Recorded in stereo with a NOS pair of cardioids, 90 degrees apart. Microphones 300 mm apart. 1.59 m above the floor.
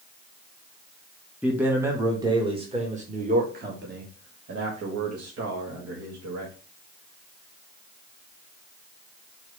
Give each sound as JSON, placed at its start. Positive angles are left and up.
{"t": 1.4, "sound": "a man speaking", "azimuth_deg": -5, "distance_m": 2.5}